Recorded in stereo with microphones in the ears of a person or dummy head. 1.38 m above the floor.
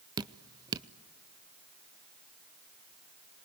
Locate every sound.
0.2 s dripping: 20° right (ahead or behind), 0.5 m